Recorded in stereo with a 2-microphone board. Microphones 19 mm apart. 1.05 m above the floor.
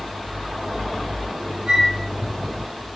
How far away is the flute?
About 4.5 m.